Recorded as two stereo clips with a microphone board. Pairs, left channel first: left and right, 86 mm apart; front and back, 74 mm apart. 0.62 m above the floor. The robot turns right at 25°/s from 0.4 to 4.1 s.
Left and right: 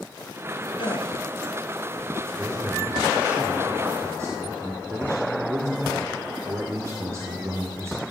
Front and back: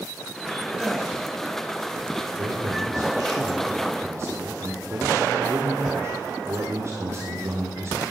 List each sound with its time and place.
0.8 s a gasp: 95° left, 2.5 m; by 1.1 s 105° left, 2.5 m
2.4 s a man speaking: straight behind, 2 m; by 8.0 s 140° right, 2 m